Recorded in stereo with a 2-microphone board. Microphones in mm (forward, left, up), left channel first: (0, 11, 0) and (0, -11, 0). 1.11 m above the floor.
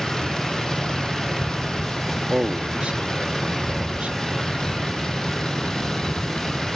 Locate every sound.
0.0 s a vehicle: 30° left (ahead or behind)
2.3 s a man speaking: 70° right (ahead or behind)